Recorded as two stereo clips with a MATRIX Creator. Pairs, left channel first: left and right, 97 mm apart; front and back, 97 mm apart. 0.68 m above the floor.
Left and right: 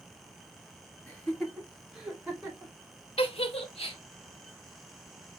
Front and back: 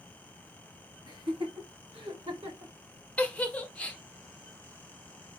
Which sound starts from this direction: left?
A giggle, at 3.2 s.